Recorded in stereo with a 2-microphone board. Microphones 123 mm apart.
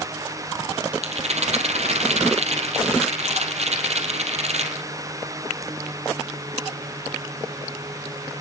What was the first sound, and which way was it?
A rattle, 60° right (ahead or behind).